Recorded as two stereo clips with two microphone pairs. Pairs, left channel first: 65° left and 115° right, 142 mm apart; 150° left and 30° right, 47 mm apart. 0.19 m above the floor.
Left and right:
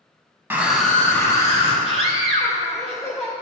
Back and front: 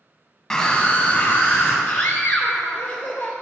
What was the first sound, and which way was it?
A scream, 155° right.